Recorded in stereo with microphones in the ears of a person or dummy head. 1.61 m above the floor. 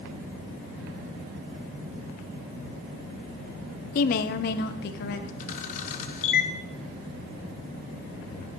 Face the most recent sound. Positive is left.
turn(degrees=45)  # may be behind; listen again after turning